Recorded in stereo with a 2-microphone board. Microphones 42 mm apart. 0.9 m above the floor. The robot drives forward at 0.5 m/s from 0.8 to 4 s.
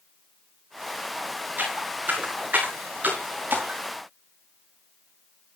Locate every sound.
1.6 s footsteps: 45° right (ahead or behind), 7 m